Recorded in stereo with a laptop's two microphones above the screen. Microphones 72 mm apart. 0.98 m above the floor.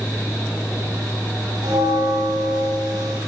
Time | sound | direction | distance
0.0 | a fan | 30° left (ahead or behind) | 4.5 m
1.6 | a bell | 75° right (ahead or behind) | 4 m